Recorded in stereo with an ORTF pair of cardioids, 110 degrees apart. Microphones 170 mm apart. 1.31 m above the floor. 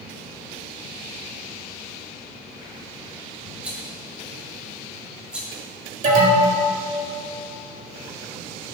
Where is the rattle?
5° right, 1.6 m.